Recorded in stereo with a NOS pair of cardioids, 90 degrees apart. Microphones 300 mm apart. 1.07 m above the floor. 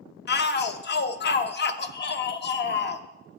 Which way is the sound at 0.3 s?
35° left.